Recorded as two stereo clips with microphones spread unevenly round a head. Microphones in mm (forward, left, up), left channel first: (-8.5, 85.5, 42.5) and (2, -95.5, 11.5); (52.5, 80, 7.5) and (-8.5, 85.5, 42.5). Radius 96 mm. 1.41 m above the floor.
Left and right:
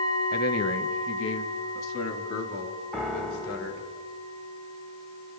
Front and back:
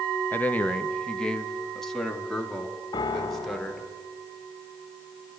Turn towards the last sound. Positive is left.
turn(degrees=10)